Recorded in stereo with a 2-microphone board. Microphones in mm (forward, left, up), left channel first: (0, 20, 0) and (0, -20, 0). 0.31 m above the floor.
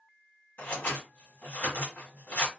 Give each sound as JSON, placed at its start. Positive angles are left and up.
{"t": 0.6, "sound": "scissors", "side_deg": 55, "distance_m": 1.5}